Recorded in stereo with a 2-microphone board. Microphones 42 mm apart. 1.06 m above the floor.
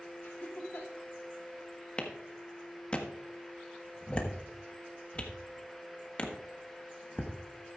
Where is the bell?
No bell in this recording.